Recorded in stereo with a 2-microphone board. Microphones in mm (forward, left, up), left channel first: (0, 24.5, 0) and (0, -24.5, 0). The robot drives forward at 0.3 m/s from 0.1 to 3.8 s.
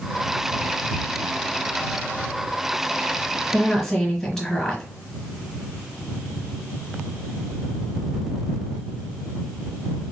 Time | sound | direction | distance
3.5 | a woman speaking | 10° left (ahead or behind) | 1.1 m